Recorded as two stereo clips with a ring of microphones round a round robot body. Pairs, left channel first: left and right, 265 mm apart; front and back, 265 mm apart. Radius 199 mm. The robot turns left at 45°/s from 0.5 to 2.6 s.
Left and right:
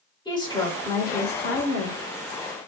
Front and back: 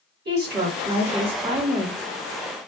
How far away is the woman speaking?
About 1.9 m.